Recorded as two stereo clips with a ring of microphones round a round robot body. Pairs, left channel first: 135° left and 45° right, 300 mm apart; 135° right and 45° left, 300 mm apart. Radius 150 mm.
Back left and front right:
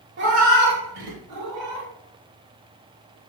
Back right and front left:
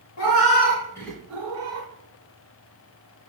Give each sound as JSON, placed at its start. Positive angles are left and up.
{"t": 0.2, "sound": "a cat meowing", "azimuth_deg": -100, "distance_m": 0.9}